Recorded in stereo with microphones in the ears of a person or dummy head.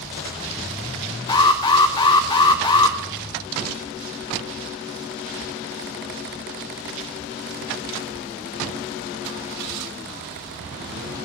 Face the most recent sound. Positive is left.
turn(degrees=25)  # may be behind; listen again after turning